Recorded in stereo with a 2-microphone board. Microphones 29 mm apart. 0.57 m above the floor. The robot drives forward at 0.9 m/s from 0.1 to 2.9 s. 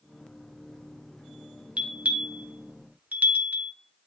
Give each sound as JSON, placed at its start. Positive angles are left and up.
{"t": 1.8, "sound": "a bell", "side_deg": -45, "distance_m": 1.5}